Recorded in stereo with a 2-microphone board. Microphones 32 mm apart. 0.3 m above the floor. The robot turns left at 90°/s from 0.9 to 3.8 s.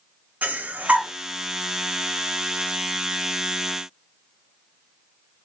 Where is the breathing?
65° right (ahead or behind), 0.5 m; by 1.1 s 80° right, 0.5 m.